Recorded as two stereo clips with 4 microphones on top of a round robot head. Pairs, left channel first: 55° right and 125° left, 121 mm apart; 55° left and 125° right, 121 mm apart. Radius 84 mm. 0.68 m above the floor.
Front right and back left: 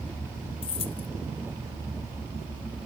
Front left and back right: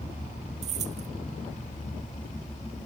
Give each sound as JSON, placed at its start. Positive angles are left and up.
{"t": 0.6, "sound": "keys jangling", "azimuth_deg": -100}